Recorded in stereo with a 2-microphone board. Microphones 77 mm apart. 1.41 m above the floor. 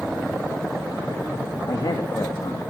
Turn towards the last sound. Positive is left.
turn(degrees=70)  # may be behind; listen again after turning